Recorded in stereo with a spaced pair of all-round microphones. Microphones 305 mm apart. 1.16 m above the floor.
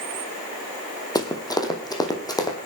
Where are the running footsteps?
10° left (ahead or behind), 2.5 m.